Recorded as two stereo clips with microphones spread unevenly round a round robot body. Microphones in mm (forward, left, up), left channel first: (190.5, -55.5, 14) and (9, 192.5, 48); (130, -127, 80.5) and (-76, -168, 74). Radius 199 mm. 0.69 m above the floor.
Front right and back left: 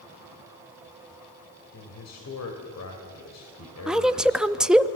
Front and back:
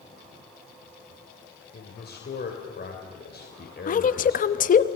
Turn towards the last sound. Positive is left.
turn(degrees=30)